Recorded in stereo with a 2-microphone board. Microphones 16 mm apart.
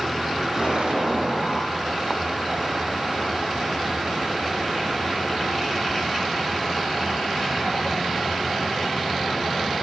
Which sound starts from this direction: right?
An explosion, at 0.6 s.